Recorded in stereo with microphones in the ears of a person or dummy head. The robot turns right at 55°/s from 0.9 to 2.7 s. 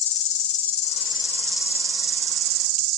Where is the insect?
145° left, 0.7 m; by 3.0 s 115° right, 0.7 m.